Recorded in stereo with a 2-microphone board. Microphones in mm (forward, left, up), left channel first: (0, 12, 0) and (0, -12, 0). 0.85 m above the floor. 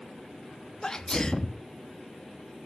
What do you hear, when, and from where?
0.8 s a sneeze: 25° left (ahead or behind), 1.1 m